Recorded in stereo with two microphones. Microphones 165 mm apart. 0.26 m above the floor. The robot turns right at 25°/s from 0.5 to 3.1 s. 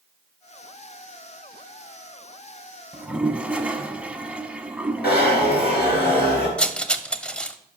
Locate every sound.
2.9 s a toilet flushing: 10° right (ahead or behind), 0.8 m
5.0 s a zipper: 75° left (ahead or behind), 3.5 m
6.6 s cutlery clinking: 5° left (ahead or behind), 0.6 m